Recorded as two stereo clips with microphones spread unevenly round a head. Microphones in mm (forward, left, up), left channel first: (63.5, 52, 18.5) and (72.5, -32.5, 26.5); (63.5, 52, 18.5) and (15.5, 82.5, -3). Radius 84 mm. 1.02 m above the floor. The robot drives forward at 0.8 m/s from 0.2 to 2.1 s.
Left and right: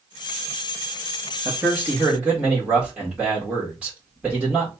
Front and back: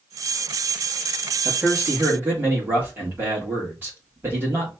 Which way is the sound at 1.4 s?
160° right.